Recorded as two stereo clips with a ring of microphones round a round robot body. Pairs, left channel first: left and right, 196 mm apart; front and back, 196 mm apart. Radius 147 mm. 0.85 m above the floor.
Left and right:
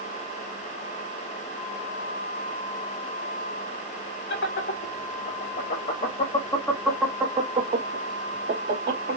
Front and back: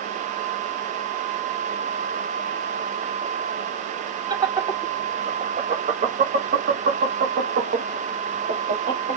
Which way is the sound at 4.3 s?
115° left.